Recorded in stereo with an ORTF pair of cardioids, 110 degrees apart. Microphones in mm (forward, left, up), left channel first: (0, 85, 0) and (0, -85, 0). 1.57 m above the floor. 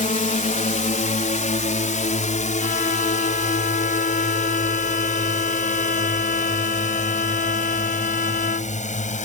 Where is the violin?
60° left.